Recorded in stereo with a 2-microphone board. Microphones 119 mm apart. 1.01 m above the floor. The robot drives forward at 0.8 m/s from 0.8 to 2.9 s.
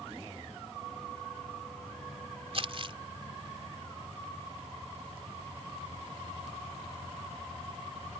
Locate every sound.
2.5 s crumpling: 55° right (ahead or behind); by 3.0 s 50° right (ahead or behind)